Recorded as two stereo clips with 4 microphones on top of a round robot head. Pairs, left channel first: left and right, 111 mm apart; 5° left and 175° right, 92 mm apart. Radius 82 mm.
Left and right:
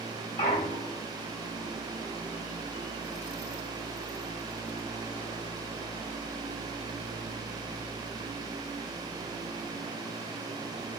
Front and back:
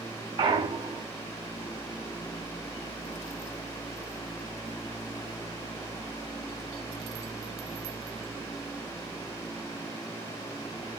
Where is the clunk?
150° left, 1.1 m.